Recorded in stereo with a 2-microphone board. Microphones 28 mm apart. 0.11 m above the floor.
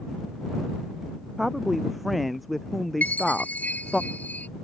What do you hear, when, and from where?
1.4 s a woman speaking: 5° right (ahead or behind); by 4.0 s 15° left (ahead or behind)
3.0 s a chime: 80° left